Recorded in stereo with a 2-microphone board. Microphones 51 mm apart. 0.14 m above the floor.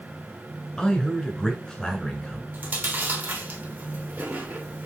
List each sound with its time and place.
0.8 s a man speaking: 15° left (ahead or behind), 1.6 m
2.5 s chewing: 40° right (ahead or behind), 1.5 m